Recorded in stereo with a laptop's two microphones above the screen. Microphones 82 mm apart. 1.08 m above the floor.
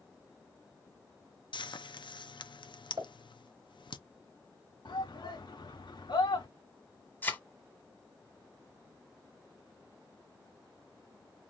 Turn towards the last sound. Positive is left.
turn(degrees=25)  # may be behind; listen again after turning